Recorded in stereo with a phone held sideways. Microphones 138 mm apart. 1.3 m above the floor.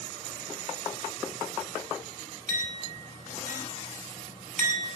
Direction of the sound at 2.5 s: 55° right (ahead or behind).